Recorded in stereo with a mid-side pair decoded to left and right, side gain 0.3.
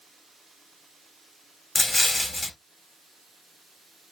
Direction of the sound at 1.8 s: 15° left.